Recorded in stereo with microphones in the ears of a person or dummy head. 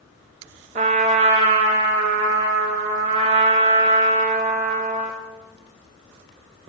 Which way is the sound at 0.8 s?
35° right (ahead or behind).